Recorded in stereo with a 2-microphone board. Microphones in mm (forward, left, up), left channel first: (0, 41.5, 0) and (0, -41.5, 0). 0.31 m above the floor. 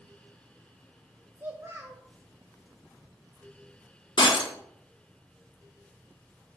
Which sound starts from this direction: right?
A child speaking, at 1.4 s.